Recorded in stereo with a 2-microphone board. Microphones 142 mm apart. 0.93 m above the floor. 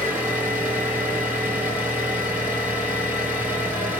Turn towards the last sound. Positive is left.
turn(degrees=-10)  # may be behind; listen again after turning